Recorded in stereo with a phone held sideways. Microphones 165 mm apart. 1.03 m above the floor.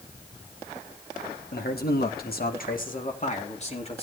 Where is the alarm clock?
No alarm clock in this recording.